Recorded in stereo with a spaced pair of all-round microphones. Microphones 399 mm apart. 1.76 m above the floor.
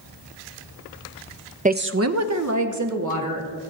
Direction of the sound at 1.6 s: 20° right (ahead or behind).